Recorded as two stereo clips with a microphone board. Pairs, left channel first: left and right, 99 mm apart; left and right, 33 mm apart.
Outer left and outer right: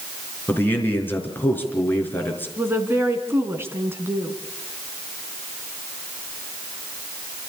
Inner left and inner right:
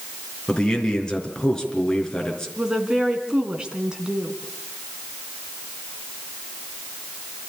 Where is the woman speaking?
25° right (ahead or behind), 3 m.